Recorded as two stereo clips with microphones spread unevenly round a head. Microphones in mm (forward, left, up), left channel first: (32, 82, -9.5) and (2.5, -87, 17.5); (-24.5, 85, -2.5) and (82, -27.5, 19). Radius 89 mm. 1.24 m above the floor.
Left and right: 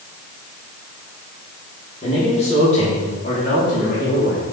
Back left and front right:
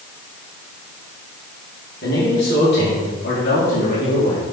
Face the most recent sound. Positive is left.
turn(degrees=115)